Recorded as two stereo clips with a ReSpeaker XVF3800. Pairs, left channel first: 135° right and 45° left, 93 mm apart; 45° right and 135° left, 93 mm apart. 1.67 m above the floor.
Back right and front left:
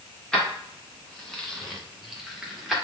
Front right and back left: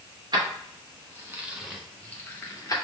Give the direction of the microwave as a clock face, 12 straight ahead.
I don't hear a microwave.